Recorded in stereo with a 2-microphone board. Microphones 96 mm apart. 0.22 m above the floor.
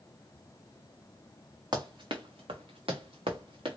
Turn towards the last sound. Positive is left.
turn(degrees=-65)  # may be behind; listen again after turning